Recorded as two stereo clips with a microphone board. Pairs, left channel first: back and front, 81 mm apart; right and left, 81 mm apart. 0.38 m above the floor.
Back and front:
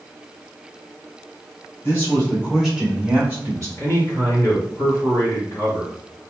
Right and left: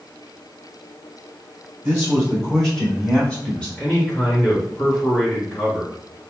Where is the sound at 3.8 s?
155° right, 1.8 m.